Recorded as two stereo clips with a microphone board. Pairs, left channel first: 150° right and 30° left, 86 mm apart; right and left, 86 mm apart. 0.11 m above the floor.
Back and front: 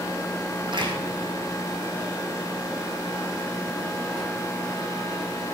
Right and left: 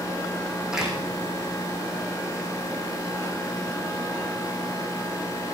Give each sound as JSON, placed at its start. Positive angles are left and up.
{"t": 0.7, "sound": "a door slam", "azimuth_deg": 5, "distance_m": 4.5}